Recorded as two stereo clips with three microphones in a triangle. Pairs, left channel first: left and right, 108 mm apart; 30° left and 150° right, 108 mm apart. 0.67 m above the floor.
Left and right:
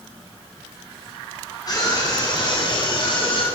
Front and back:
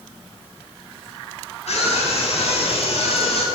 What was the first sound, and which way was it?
A scream, 35° left.